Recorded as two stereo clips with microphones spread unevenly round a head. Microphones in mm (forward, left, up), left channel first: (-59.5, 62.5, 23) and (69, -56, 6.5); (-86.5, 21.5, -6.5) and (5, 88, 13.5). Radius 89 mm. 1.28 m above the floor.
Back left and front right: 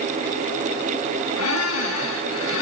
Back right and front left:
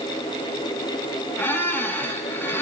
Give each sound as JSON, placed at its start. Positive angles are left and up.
{"t": 1.4, "sound": "a squeak", "azimuth_deg": 145, "distance_m": 8.0}